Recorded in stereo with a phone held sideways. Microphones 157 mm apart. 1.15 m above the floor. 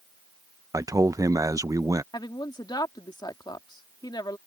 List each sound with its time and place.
0.7 s a man speaking: 20° right (ahead or behind)
2.1 s a woman speaking: 25° left (ahead or behind)